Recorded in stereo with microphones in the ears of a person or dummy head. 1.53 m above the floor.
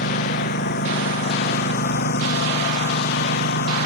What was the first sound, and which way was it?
A lawn mower, 55° left (ahead or behind).